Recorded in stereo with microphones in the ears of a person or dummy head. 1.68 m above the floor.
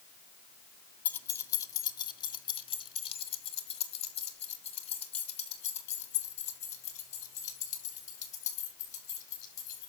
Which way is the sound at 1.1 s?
10° left (ahead or behind).